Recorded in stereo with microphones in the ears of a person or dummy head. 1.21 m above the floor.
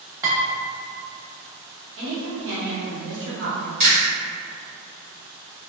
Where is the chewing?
45° right (ahead or behind), 1.4 m.